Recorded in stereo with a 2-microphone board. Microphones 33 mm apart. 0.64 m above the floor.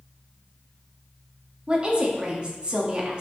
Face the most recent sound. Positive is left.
turn(degrees=-30)  # may be behind; listen again after turning